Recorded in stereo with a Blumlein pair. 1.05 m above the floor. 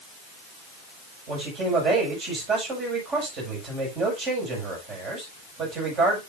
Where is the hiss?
No hiss in this recording.